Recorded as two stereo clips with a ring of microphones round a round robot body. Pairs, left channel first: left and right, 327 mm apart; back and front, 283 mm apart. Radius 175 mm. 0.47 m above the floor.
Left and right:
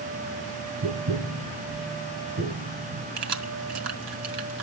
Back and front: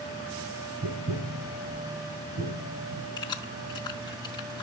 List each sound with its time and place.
0.8 s tapping: 45° right, 5 m
3.2 s keys jangling: 105° right, 2.5 m